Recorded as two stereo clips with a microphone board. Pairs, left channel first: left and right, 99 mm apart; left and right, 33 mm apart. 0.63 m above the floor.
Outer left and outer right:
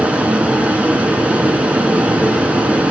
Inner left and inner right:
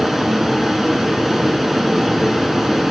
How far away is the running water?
About 3.5 m.